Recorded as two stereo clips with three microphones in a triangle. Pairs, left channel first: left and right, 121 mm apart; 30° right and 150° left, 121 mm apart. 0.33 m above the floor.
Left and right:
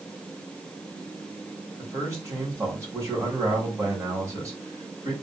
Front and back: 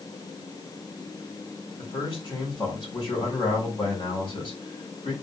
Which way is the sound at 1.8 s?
35° right.